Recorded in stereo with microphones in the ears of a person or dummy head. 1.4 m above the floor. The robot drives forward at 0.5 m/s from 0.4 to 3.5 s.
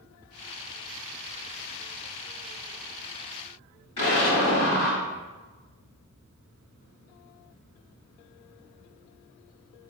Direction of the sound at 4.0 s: 30° left (ahead or behind).